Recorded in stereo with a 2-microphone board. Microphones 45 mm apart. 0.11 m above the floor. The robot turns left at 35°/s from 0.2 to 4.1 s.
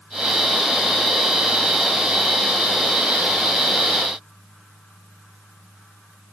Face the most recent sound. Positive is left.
No sound to turn to.